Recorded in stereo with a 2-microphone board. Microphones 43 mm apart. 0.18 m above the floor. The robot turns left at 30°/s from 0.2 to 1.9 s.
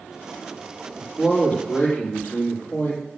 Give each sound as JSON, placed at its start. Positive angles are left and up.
{"t": 1.0, "sound": "a man speaking", "side_deg": 15, "distance_m": 5.0}